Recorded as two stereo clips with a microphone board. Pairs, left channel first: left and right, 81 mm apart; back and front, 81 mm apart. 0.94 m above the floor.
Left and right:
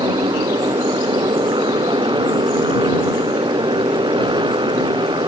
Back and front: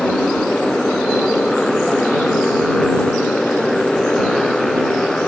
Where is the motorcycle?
95° right.